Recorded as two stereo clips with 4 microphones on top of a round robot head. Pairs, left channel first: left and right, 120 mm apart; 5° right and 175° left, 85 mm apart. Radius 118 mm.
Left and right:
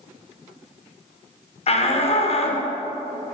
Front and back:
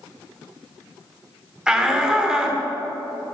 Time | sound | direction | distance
1.7 | a shout | 95° left | 1.4 m